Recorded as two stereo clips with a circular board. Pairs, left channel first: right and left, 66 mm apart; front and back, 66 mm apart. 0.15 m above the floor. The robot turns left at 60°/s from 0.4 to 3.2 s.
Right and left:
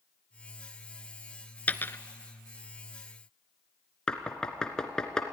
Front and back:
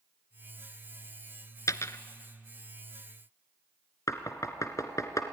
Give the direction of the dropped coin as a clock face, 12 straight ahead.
1 o'clock.